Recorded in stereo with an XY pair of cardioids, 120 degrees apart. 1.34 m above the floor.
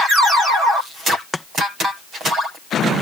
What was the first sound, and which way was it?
Chopping, 15° left.